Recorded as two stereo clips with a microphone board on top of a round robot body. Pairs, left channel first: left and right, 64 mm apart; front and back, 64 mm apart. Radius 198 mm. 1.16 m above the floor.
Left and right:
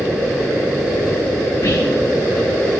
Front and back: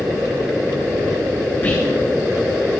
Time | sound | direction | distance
1.6 | whispering | 60° left | 2 m